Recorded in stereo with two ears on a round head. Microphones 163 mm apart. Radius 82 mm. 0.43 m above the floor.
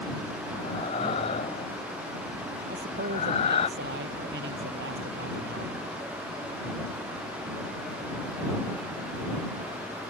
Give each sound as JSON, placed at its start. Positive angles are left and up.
{"t": 0.6, "sound": "breathing", "side_deg": 35}
{"t": 2.7, "sound": "a man speaking", "side_deg": -65}